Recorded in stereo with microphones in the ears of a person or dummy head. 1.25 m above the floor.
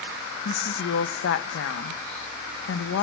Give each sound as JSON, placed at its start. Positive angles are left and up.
{"t": 0.5, "sound": "a woman speaking", "side_deg": 55, "distance_m": 0.6}